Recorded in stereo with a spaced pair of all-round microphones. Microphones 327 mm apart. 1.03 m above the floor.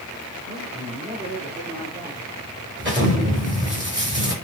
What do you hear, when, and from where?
0.5 s a man speaking: 25° right (ahead or behind), 4 m; by 2.2 s 20° right (ahead or behind), 2.5 m
2.8 s an explosion: 35° right (ahead or behind), 5 m